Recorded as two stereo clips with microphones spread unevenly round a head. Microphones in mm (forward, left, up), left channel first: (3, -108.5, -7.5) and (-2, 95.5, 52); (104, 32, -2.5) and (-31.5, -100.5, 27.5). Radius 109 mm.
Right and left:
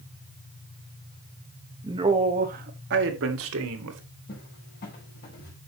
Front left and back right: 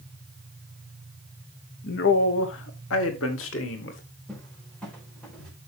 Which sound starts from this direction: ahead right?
A cupboard door, at 4.3 s.